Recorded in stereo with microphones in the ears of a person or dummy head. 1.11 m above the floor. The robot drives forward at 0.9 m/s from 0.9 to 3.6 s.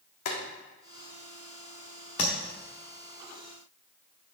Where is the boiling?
55° left (ahead or behind), 1.5 m.